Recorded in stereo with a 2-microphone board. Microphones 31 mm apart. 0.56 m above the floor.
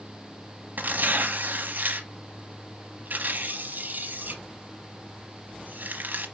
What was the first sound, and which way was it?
Tearing paper, 70° right (ahead or behind).